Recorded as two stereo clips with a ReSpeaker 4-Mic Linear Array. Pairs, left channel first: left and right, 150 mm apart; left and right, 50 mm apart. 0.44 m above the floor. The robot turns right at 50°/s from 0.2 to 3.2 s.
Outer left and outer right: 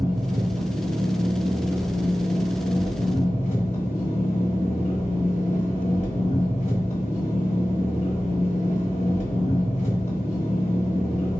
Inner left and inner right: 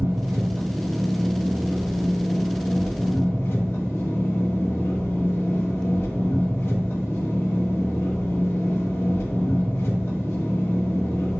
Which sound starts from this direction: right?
An engine running, at 0.0 s.